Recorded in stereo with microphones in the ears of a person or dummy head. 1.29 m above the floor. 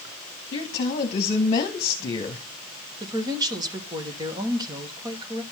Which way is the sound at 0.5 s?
40° left (ahead or behind).